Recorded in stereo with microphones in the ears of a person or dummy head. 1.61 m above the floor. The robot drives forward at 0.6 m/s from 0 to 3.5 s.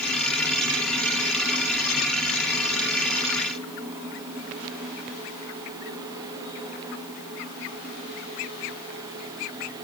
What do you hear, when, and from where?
Only background noise.